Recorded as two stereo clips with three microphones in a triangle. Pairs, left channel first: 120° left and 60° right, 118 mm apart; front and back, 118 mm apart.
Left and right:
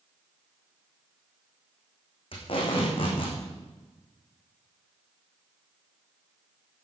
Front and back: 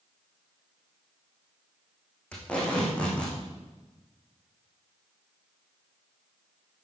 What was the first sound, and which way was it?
Tape being pulled, 80° left.